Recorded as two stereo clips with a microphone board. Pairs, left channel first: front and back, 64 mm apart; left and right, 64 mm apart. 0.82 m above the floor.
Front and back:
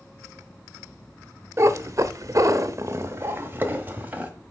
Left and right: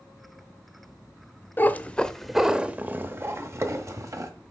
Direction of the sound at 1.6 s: 145° left.